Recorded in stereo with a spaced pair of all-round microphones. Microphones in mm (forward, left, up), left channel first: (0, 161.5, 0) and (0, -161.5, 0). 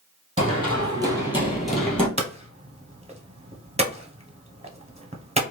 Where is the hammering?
20° right (ahead or behind), 0.7 m.